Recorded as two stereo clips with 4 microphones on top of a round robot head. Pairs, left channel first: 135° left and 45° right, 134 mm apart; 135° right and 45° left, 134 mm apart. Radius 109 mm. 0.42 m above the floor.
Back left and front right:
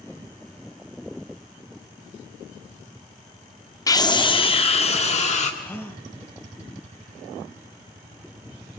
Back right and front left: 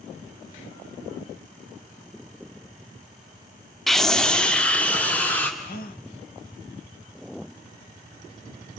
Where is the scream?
135° left, 1.3 m; by 5.5 s 145° left, 2 m.